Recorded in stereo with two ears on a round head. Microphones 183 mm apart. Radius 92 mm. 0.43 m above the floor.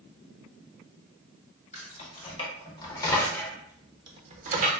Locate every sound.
1.7 s keys jangling: 35° left (ahead or behind), 1.3 m; by 4.7 s 40° right (ahead or behind), 0.7 m